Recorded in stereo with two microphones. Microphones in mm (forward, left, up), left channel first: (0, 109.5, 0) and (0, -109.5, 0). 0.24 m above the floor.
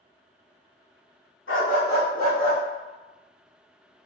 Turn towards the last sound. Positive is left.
turn(degrees=25)  # may be behind; listen again after turning